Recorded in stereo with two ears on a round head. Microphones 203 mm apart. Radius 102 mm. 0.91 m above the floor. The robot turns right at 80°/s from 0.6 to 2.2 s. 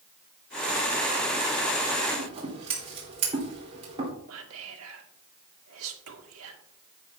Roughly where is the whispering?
Right.